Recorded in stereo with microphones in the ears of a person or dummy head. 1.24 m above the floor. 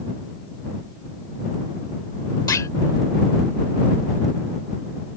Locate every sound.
2.5 s a clunk: 15° left (ahead or behind)